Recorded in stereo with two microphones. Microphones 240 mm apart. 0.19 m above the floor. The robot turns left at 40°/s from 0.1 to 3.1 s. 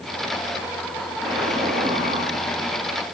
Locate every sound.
1.2 s an explosion: 15° left, 9.5 m; by 2.3 s 30° right, 9.5 m